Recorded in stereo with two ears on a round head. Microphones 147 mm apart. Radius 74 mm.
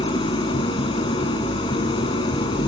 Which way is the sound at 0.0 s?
30° left (ahead or behind).